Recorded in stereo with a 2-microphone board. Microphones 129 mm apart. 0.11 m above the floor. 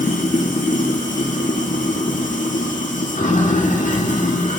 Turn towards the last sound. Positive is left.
turn(degrees=80)